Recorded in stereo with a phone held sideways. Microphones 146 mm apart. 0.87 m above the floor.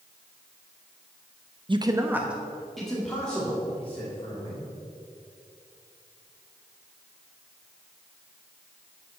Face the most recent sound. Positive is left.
turn(degrees=10)  # may be behind; listen again after turning